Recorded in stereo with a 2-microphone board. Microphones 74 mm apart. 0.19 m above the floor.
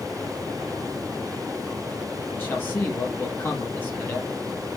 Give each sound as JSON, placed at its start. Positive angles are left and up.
{"t": 2.3, "sound": "a man speaking", "side_deg": 30, "distance_m": 5.0}